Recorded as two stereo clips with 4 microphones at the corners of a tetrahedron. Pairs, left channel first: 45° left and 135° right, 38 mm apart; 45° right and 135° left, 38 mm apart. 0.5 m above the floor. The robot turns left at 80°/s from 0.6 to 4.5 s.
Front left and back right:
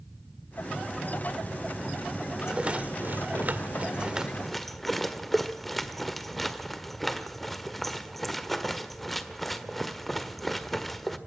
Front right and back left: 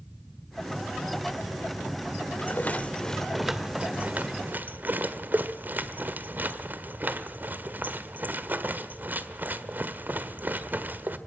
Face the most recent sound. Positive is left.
turn(degrees=130)